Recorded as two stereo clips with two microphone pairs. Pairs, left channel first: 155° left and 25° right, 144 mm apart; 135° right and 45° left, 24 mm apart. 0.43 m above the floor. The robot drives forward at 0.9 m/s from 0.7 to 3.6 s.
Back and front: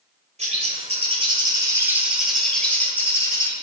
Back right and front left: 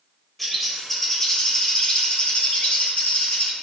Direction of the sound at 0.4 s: 50° right.